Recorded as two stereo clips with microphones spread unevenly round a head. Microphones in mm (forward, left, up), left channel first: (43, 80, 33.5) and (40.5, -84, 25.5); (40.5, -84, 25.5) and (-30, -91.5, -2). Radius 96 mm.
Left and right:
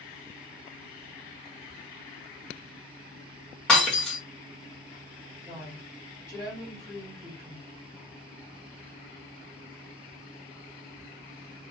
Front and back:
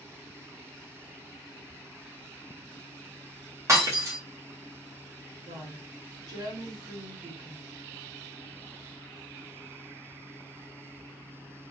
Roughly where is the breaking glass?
Behind.